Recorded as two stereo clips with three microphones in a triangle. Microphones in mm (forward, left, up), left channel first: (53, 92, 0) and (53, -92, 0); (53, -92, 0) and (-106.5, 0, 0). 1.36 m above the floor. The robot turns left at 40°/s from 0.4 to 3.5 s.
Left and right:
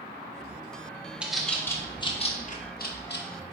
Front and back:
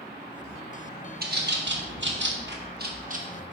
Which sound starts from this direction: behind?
A bird, at 1.2 s.